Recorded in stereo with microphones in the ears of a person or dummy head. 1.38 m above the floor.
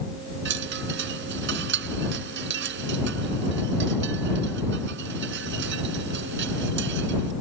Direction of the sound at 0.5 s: 65° right (ahead or behind).